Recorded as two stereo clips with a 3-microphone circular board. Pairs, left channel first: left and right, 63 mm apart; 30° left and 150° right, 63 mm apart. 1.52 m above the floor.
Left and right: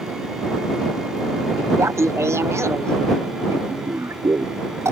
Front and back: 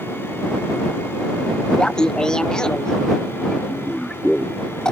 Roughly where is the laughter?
Ahead right.